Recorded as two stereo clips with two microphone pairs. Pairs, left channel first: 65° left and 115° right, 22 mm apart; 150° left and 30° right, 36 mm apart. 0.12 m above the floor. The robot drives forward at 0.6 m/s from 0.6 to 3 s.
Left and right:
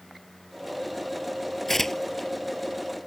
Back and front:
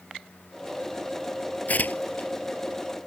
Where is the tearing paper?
130° left; by 2.3 s 140° left.